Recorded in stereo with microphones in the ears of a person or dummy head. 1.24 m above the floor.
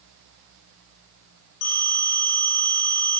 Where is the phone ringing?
75° left (ahead or behind), 1.9 m.